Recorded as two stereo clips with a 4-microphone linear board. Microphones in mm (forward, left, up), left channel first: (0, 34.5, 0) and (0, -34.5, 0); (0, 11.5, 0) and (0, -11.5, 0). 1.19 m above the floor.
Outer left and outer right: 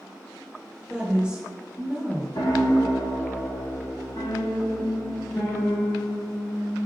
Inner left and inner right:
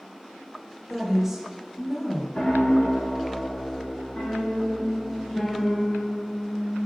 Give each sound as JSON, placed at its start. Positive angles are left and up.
{"t": 0.9, "sound": "a woman speaking", "side_deg": -15, "distance_m": 1.6}
{"t": 2.4, "sound": "a piano", "side_deg": 60, "distance_m": 1.2}